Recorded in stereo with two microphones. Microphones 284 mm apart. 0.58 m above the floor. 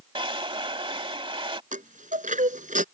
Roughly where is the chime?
Right.